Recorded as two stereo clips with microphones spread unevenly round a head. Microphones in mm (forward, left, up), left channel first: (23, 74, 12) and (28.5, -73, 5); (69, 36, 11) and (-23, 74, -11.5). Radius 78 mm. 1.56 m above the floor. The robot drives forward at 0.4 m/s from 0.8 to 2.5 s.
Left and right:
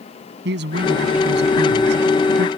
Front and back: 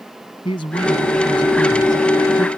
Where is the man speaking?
80° right; by 2.5 s 85° right.